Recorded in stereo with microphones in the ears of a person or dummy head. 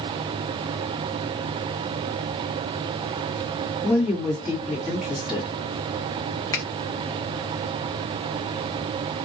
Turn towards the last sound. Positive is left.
turn(degrees=20)  # may be behind; listen again after turning